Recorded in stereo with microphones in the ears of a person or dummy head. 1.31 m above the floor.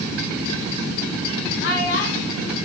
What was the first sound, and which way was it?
A child speaking, 75° left (ahead or behind).